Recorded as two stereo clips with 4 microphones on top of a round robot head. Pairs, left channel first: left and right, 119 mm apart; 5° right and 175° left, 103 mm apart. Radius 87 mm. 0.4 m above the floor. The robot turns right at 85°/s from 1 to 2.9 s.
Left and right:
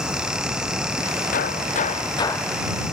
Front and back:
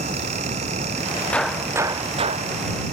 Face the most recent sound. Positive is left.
turn(degrees=-155)